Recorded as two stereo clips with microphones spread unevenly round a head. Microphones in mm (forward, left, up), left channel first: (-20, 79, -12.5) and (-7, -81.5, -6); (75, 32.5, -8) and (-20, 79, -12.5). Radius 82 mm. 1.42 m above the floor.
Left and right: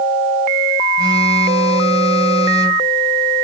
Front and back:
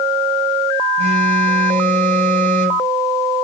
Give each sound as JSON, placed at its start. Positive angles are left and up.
{"t": 1.0, "sound": "a phone buzzing", "azimuth_deg": -150, "distance_m": 8.0}